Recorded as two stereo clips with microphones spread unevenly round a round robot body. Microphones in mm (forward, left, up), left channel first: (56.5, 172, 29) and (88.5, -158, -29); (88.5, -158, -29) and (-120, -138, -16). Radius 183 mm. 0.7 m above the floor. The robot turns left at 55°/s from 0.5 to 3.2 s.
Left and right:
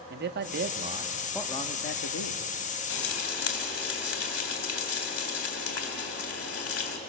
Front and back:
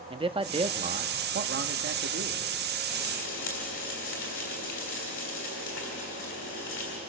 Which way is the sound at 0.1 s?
125° right.